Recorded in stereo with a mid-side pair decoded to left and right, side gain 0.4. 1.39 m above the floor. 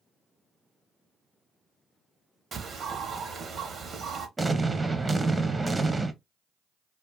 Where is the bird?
55° right, 0.8 m.